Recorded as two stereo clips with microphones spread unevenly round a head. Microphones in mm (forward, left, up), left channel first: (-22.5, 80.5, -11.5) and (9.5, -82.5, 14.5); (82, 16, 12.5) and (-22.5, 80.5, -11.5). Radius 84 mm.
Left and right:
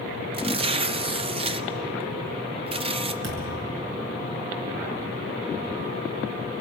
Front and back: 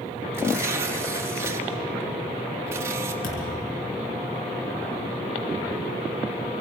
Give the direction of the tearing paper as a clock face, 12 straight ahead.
5 o'clock.